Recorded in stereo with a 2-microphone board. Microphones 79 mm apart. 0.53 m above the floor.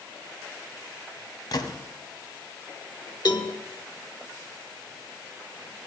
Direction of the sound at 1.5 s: 60° left (ahead or behind).